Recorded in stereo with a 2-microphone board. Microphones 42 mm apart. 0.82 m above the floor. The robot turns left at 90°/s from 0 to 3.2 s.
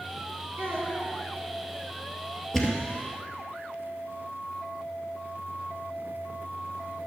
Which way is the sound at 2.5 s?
10° left (ahead or behind).